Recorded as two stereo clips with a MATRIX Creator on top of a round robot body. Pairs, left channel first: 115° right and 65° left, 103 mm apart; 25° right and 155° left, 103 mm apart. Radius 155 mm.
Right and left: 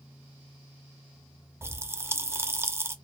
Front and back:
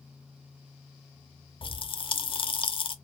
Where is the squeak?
I don't hear a squeak.